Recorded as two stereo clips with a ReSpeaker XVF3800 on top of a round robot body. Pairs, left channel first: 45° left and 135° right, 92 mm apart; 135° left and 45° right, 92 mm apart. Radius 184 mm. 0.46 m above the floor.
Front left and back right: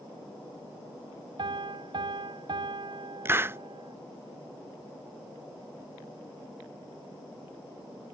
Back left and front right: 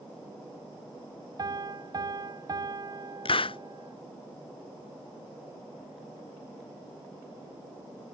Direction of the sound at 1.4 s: 95° right.